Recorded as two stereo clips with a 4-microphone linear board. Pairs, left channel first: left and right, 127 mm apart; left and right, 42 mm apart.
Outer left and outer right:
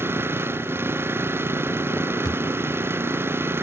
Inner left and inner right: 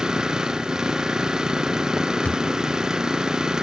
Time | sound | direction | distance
0.0 | an engine running | 15° right (ahead or behind) | ?
2.2 | a thud | 35° left (ahead or behind) | ?